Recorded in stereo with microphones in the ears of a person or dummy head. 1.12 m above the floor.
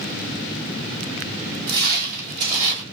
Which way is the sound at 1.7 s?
55° right (ahead or behind).